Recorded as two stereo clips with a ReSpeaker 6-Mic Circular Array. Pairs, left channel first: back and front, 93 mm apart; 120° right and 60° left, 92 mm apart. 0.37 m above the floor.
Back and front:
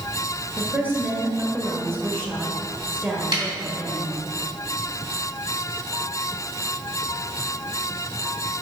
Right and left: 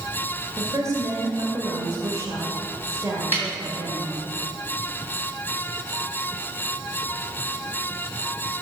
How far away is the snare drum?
About 2.5 m.